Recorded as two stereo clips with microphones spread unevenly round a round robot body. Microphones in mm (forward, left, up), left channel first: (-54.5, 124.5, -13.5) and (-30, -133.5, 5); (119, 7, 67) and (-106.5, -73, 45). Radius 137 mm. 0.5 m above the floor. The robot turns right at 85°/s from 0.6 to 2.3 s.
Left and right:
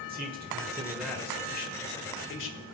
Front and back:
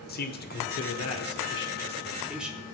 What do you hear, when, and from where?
0.1 s a man speaking: 30° right, 2 m; by 2.6 s 115° left, 2 m